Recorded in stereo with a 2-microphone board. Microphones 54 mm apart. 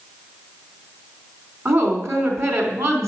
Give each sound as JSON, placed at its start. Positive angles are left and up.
{"t": 1.6, "sound": "a woman speaking", "side_deg": -60, "distance_m": 3.5}